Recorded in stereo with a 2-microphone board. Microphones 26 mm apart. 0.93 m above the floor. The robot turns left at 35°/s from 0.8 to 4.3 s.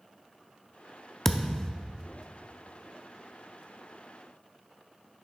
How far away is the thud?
About 0.5 m.